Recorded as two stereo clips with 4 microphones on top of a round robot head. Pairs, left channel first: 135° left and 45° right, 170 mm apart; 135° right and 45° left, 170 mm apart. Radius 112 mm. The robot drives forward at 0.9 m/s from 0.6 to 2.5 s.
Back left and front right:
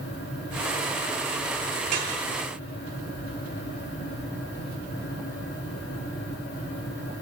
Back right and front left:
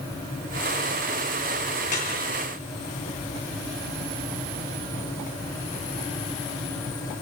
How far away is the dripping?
About 8.5 m.